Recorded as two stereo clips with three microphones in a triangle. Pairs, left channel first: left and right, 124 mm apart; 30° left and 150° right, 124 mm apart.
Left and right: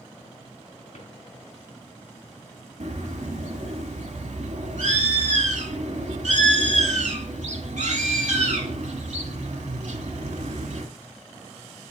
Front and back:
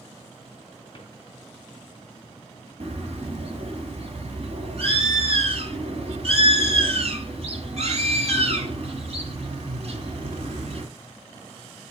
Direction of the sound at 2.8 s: 110° right.